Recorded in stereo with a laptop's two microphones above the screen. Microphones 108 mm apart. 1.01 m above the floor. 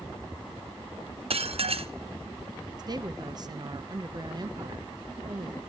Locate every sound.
1.3 s dishes clattering: 65° right (ahead or behind), 0.6 m
2.8 s a woman speaking: 40° right (ahead or behind), 0.6 m